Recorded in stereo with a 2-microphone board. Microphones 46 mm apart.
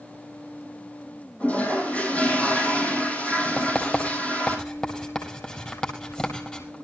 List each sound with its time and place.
1.4 s a toilet flushing: 30° left (ahead or behind), 5 m
3.6 s writing: 15° left (ahead or behind), 4.5 m